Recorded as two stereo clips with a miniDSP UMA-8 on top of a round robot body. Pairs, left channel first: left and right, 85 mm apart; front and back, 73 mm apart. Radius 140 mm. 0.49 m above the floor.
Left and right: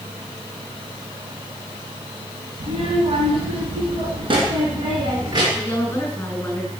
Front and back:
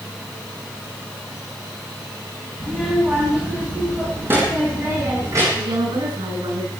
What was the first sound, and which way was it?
A child speaking, 90° right.